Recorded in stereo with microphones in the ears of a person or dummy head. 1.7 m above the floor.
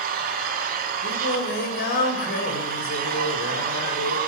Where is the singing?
55° left (ahead or behind), 2.5 m.